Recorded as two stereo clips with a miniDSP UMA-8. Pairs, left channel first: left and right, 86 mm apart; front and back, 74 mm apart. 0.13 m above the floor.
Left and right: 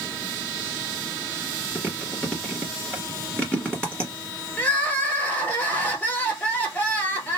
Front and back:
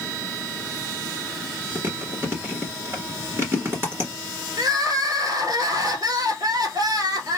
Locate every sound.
1.8 s chewing: 160° left, 1.7 m
4.6 s crying: 160° left, 1.3 m